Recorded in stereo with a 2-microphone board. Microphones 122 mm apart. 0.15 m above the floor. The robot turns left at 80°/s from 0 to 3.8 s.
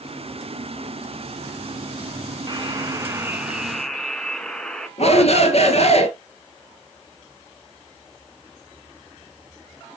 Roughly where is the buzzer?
Right.